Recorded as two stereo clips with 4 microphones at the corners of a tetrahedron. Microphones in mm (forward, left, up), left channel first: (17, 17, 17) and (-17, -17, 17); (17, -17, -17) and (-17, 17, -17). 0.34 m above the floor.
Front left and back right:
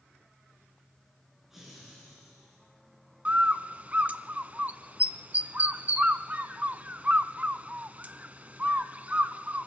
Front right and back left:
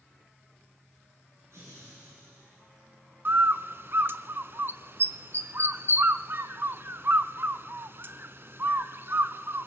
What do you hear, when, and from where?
1.5 s laughter: 145° left, 4.5 m; by 2.6 s 150° left, 5 m
3.2 s a bird: 170° left, 0.7 m